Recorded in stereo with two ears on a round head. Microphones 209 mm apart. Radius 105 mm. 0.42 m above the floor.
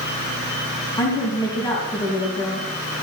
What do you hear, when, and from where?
1.0 s a woman speaking: 20° left (ahead or behind), 3 m